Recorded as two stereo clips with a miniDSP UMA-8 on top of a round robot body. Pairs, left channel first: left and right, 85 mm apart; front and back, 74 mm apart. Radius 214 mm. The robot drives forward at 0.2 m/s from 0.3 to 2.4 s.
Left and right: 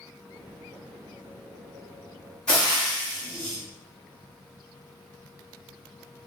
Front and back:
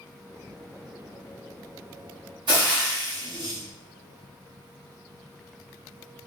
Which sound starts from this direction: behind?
Frying, at 2.5 s.